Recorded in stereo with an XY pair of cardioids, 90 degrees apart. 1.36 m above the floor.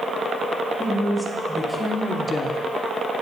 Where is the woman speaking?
10° left, 2.5 m; by 2.6 s 70° left, 0.6 m.